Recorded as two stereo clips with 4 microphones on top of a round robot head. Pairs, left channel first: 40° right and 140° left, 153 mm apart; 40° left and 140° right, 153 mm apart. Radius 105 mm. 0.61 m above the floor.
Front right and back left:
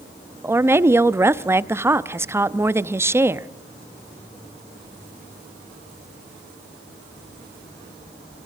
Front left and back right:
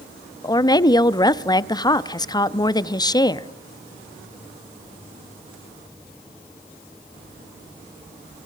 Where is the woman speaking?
80° left, 0.6 m.